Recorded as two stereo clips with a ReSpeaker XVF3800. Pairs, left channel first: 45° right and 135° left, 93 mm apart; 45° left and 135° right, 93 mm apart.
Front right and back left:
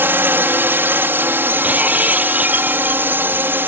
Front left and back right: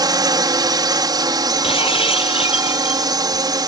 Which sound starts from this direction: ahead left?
Breaking glass, at 1.6 s.